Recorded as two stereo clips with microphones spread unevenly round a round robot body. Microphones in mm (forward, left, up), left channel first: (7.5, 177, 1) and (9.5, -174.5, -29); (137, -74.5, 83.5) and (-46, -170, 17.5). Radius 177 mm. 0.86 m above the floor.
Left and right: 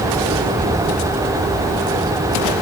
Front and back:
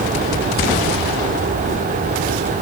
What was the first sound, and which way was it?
Only background noise.